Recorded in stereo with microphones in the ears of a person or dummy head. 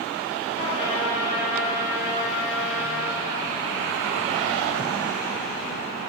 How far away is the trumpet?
About 4 m.